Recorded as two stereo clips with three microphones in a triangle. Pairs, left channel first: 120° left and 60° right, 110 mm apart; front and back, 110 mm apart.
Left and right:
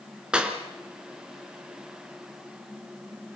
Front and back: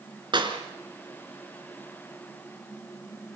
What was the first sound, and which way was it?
A clap, 140° right.